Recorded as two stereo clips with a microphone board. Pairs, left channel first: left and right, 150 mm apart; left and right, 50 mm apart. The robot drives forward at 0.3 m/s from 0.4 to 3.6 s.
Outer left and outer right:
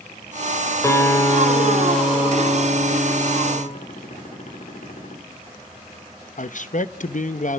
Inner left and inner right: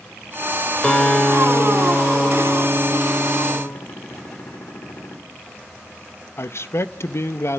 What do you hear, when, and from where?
0.8 s a guitar: 20° left (ahead or behind), 4 m; by 3.6 s 15° left (ahead or behind), 5 m
3.8 s a gunshot: 60° left (ahead or behind), 4 m
6.4 s a man speaking: 60° left (ahead or behind), 0.9 m